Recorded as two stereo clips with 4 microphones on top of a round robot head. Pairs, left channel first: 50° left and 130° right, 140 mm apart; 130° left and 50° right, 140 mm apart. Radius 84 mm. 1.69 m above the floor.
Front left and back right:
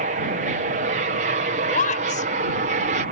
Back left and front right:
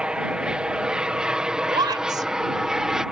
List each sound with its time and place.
0.0 s an aircraft: 135° right
1.7 s a woman speaking: 15° left